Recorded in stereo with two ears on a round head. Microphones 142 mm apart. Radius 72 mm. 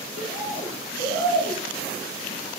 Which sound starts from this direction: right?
A bird, at 0.2 s.